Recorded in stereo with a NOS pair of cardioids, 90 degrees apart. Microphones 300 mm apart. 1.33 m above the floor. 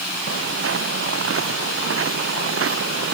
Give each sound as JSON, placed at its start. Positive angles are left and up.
{"t": 0.3, "sound": "footsteps", "azimuth_deg": -45}